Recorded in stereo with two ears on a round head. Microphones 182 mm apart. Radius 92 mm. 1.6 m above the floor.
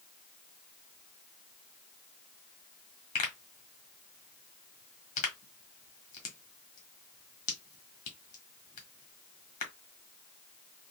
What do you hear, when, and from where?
3.1 s a pop: 35° left (ahead or behind), 1.4 m